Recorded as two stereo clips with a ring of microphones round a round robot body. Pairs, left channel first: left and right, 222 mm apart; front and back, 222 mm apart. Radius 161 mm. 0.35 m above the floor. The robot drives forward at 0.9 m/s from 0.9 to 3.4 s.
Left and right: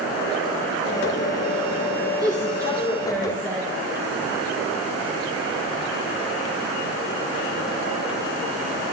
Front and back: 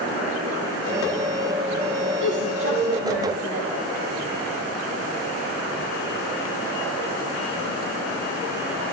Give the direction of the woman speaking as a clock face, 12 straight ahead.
5 o'clock.